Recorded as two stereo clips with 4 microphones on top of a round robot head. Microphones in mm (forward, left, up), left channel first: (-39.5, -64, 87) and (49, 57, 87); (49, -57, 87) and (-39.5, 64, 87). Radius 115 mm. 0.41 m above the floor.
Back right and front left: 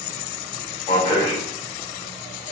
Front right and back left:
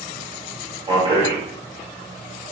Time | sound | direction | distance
0.9 | a man speaking | straight behind | 2 m